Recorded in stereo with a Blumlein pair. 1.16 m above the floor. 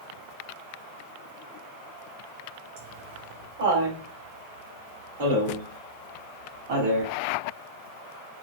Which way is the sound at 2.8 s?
55° right.